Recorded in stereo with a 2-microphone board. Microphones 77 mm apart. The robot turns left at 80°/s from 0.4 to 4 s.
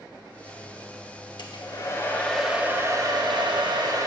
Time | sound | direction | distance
1.4 | a hair dryer | 80° left | 0.9 m